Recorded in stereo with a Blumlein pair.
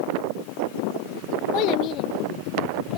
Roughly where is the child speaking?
Ahead left.